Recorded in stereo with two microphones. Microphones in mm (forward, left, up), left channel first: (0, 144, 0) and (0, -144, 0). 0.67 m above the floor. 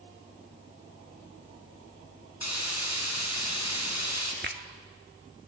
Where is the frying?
65° left (ahead or behind), 5 m.